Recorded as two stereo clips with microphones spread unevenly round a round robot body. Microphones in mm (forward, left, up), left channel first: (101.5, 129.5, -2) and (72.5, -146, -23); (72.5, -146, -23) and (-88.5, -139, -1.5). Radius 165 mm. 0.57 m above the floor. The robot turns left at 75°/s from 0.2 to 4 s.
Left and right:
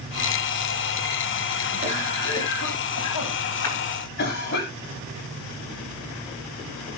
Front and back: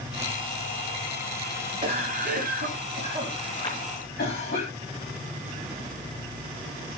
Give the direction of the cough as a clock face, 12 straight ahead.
5 o'clock.